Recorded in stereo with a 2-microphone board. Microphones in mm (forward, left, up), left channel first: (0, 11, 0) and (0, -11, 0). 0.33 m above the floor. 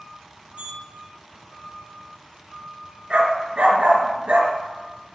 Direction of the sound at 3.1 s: 60° right (ahead or behind).